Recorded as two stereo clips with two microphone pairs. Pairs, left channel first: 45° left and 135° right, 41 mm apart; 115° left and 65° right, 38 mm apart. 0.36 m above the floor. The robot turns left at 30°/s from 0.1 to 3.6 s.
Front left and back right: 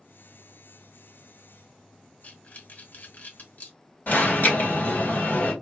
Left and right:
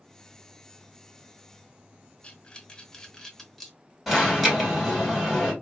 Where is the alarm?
25° left, 3 m.